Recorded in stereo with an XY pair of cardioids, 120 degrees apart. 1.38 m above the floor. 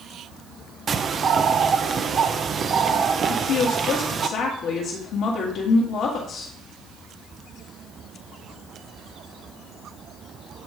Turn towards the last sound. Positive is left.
turn(degrees=70)